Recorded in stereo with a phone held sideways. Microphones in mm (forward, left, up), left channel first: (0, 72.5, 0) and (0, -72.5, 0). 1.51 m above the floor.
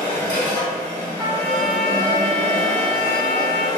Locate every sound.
0.0 s a machine running: 25° left (ahead or behind), 1.8 m
1.2 s a trumpet: 20° left (ahead or behind), 1.0 m